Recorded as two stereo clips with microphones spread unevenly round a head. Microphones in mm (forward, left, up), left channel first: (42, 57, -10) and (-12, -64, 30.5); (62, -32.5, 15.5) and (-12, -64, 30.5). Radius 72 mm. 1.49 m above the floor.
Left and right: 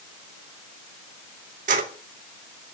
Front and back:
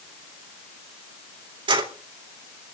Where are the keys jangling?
150° right, 3.5 m.